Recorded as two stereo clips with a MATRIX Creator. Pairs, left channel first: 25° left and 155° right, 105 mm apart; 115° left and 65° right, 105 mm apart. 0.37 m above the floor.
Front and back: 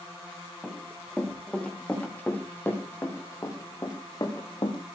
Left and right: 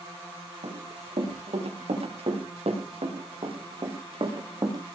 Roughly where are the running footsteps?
Ahead right.